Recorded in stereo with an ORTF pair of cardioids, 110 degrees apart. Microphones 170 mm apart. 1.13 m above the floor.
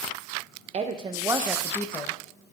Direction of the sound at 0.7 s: 40° right.